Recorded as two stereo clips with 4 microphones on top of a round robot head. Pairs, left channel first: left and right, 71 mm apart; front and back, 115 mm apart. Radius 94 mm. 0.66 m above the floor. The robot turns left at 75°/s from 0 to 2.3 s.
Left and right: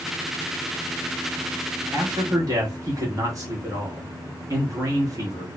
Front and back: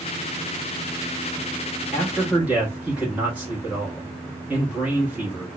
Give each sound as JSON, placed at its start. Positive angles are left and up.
{"t": 1.9, "sound": "a man speaking", "azimuth_deg": -75, "distance_m": 1.0}